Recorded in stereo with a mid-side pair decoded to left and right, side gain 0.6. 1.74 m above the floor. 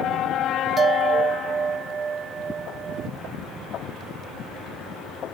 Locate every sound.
0.8 s a bell: 30° right